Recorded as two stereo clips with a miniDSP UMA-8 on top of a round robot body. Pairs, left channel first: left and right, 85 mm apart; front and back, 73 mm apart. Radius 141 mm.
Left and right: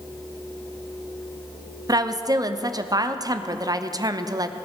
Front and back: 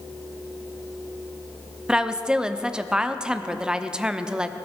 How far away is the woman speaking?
About 1.1 m.